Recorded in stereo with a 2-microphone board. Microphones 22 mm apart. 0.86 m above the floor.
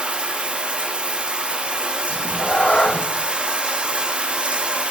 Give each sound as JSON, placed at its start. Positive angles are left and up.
{"t": 0.0, "sound": "running water", "side_deg": -50, "distance_m": 1.0}
{"t": 2.1, "sound": "a cat meowing", "side_deg": 50, "distance_m": 0.6}